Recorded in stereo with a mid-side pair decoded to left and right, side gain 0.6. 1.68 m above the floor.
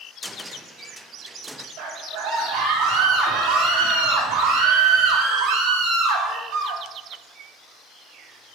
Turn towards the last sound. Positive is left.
turn(degrees=-70)